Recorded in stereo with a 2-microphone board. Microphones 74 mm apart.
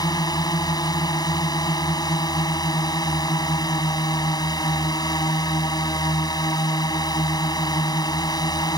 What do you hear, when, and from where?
0.0 s a drone: 65° left (ahead or behind)